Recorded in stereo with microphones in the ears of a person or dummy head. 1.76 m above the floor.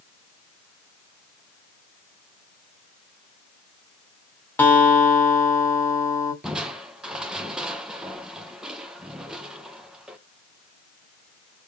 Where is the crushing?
10° right (ahead or behind), 0.9 m.